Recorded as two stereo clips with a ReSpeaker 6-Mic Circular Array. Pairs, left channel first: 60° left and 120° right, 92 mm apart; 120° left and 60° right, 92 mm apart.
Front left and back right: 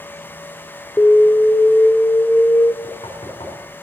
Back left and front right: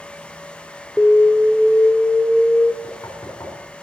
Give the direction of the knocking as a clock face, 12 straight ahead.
10 o'clock.